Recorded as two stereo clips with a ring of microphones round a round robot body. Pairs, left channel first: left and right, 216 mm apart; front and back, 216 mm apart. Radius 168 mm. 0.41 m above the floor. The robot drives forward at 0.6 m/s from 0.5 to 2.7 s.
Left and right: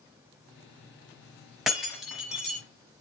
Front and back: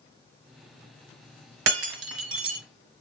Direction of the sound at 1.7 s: Straight behind.